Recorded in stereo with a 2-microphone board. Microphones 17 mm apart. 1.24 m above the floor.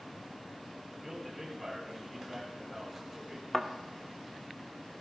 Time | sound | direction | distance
0.9 | a man speaking | 10° right (ahead or behind) | 8 m
3.5 | a thud | 10° left (ahead or behind) | 1.3 m